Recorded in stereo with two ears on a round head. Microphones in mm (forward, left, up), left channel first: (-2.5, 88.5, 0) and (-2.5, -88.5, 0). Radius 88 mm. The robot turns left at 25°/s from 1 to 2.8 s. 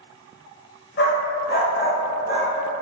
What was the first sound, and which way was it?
A dog barking, 55° left (ahead or behind).